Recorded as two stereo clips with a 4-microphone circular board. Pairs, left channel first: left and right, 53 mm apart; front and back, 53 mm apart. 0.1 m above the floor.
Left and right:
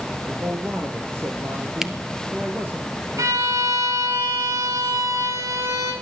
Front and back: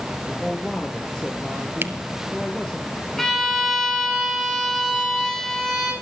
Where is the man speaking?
65° right, 2.5 m.